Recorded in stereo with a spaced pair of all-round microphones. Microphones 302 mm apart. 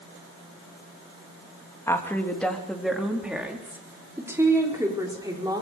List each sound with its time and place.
1.9 s a woman speaking: 10° left (ahead or behind), 2.5 m; by 5.6 s 15° right (ahead or behind), 5.5 m